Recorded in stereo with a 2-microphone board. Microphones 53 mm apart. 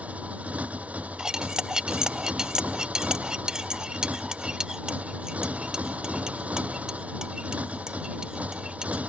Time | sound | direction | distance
0.0 | a motorcycle | 25° right (ahead or behind) | ?
1.2 | cutlery clinking | 15° right (ahead or behind) | ?